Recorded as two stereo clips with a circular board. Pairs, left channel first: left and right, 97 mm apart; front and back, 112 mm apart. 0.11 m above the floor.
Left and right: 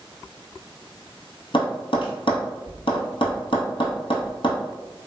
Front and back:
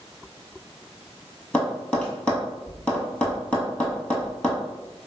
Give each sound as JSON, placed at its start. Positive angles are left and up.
{"t": 1.5, "sound": "tapping", "azimuth_deg": 80, "distance_m": 1.0}